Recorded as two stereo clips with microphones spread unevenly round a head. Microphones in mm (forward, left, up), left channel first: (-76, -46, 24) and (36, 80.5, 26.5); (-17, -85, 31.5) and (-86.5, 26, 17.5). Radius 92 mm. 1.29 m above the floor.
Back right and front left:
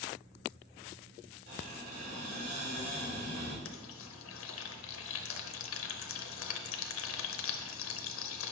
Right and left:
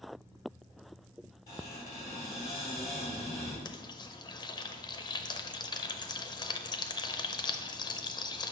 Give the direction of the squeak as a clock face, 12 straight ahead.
12 o'clock.